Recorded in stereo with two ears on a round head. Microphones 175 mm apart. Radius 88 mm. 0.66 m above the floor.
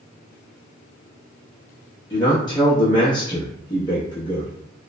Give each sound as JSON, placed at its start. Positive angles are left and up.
{"t": 2.1, "sound": "a man speaking", "side_deg": 20, "distance_m": 0.8}